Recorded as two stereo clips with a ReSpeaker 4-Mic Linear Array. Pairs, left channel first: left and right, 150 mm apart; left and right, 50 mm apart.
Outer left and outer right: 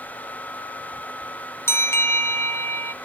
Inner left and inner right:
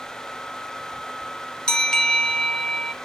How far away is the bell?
About 1.1 m.